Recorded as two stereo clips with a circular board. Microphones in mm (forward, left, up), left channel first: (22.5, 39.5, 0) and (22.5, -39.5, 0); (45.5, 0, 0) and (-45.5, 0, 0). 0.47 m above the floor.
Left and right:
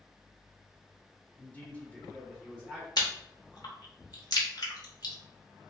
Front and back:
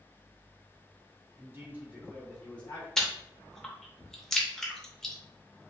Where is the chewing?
85° left, 0.7 m.